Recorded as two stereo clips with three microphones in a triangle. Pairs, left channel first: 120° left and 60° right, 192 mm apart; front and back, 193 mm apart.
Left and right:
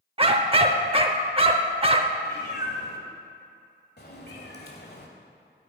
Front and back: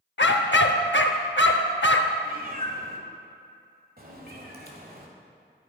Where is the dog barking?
Straight ahead, 0.7 m.